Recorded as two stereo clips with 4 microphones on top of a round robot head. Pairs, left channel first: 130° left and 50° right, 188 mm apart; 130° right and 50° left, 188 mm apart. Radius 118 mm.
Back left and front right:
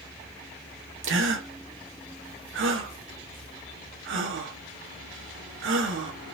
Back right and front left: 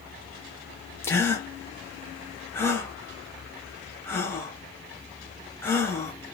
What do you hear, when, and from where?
1.0 s a gasp: 55° right, 0.9 m